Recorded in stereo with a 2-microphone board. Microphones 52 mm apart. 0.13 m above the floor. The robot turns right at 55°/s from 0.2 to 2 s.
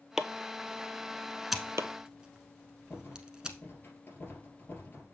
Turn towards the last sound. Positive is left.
turn(degrees=40)  # may be behind; listen again after turning